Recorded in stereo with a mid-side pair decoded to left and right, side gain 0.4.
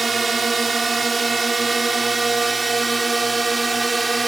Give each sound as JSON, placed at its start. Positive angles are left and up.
{"t": 0.0, "sound": "a drone", "azimuth_deg": -30}